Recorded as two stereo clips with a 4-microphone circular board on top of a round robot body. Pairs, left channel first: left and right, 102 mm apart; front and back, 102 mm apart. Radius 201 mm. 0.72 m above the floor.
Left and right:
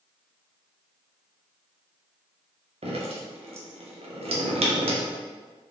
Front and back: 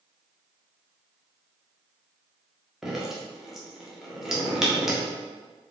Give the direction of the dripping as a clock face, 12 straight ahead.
3 o'clock.